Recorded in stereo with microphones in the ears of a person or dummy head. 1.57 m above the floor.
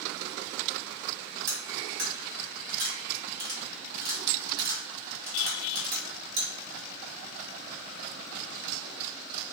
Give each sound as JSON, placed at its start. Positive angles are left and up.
{"t": 1.5, "sound": "cutlery clinking", "side_deg": -60, "distance_m": 1.7}